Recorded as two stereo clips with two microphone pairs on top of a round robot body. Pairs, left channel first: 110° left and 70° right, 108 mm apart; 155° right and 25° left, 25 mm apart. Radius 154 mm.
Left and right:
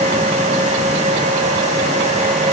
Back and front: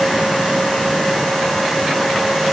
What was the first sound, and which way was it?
Only background noise.